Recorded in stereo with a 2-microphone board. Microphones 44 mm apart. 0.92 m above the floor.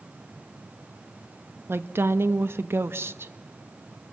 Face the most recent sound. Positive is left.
turn(degrees=-60)  # may be behind; listen again after turning